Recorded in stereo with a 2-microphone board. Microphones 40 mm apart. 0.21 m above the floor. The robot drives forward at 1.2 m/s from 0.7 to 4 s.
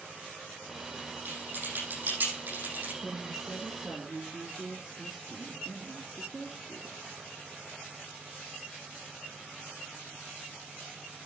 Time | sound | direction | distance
1.2 | typing on a keyboard | 55° right (ahead or behind) | 9 m
3.0 | a woman speaking | 5° right (ahead or behind) | 1.7 m